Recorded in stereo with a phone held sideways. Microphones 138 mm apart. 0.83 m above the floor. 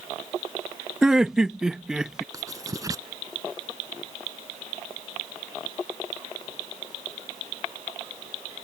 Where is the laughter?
5° right (ahead or behind).